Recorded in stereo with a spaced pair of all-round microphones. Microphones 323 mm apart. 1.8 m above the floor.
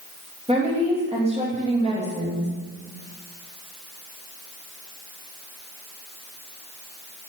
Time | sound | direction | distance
0.5 | a woman speaking | 15° right (ahead or behind) | 2.5 m